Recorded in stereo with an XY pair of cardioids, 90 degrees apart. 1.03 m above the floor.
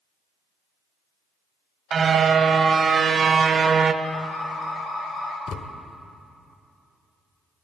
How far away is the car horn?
About 2 m.